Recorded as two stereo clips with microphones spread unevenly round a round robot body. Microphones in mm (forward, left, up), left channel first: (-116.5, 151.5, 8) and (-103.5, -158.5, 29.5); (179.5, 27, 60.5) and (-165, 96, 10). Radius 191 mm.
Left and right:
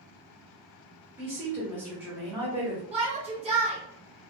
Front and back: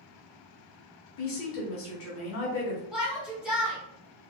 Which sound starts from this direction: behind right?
A shout, at 2.9 s.